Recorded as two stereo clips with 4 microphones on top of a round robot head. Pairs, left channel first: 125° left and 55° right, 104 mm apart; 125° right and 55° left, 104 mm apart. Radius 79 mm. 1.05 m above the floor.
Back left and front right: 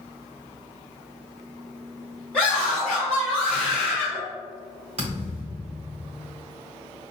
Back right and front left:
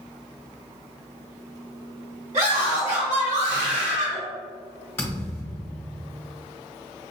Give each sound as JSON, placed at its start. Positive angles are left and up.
{"t": 2.3, "sound": "a scream", "azimuth_deg": 45, "distance_m": 1.6}
{"t": 5.0, "sound": "a thud", "azimuth_deg": -65, "distance_m": 0.9}